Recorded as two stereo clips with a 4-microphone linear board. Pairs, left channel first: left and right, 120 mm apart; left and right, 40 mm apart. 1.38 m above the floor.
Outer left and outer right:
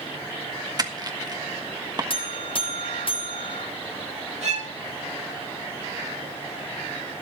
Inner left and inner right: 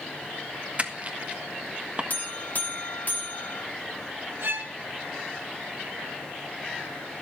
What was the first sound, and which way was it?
Crushing, 35° right (ahead or behind).